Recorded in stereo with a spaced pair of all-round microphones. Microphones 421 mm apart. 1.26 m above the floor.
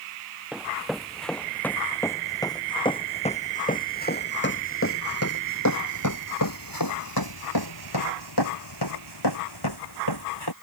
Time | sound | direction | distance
0.5 | running footsteps | centre (ahead or behind) | ?